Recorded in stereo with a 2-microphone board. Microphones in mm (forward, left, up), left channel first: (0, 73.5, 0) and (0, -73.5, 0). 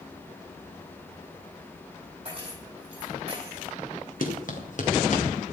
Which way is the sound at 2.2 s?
40° right (ahead or behind).